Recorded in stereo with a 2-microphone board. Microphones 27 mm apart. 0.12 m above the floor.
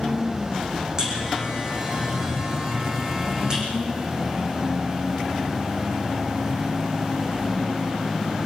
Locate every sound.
1.0 s a buzzer: 25° right (ahead or behind), 8 m